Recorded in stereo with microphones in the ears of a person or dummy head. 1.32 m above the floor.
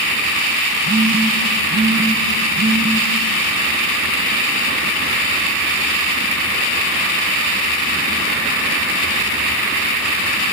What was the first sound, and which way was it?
A phone buzzing, 70° right (ahead or behind).